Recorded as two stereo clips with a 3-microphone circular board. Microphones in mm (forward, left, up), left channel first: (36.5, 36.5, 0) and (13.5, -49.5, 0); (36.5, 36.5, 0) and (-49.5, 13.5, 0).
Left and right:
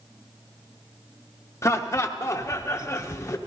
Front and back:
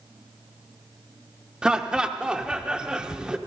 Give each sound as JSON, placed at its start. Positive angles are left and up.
{"t": 1.6, "sound": "laughter", "azimuth_deg": 115, "distance_m": 0.6}